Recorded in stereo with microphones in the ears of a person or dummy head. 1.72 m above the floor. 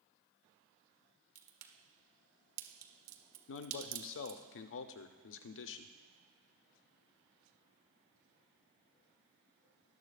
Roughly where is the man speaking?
Left.